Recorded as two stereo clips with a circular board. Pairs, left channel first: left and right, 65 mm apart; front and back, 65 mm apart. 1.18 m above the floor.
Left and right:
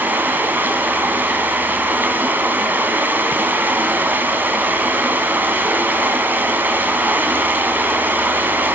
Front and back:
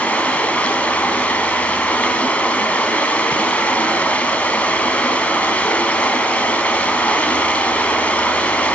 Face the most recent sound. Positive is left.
turn(degrees=-50)